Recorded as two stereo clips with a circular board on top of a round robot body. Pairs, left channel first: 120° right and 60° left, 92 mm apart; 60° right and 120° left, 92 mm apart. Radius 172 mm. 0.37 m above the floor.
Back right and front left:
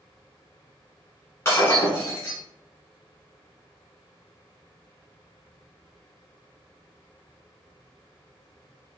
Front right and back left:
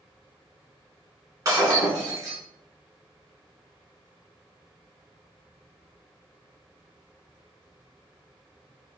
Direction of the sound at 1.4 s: 175° left.